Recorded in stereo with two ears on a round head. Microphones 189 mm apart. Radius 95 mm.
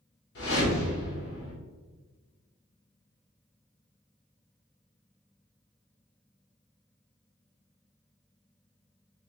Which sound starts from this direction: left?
A whoosh, at 0.3 s.